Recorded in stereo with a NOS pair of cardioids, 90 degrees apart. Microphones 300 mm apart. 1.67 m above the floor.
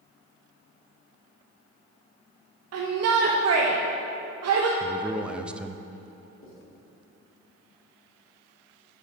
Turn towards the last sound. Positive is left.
turn(degrees=45)